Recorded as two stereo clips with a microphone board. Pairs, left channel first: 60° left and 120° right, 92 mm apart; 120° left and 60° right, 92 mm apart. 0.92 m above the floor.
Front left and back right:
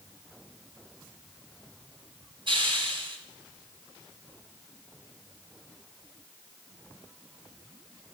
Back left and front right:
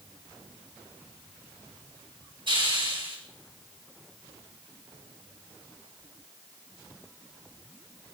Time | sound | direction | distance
2.5 | a hiss | 90° right | 6 m